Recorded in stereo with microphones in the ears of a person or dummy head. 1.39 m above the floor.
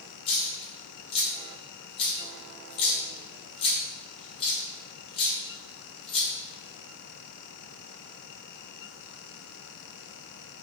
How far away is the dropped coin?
About 1.2 m.